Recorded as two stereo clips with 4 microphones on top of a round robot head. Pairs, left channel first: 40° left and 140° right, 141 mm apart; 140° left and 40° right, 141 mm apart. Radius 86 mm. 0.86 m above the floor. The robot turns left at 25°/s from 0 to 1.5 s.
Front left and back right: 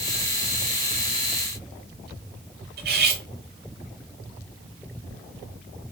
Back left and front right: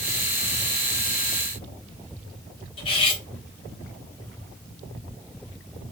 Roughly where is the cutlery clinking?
Behind.